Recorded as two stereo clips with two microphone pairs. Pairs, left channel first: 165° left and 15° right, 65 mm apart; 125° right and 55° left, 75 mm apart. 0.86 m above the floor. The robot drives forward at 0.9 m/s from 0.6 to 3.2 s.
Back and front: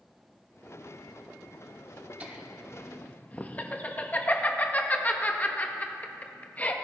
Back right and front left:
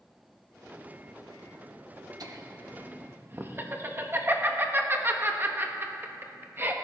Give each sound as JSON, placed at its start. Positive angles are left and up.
{"t": 2.2, "sound": "laughter", "azimuth_deg": 45, "distance_m": 1.2}